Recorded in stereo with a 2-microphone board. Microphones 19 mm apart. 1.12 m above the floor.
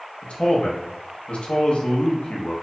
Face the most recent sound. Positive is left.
turn(degrees=75)  # may be behind; listen again after turning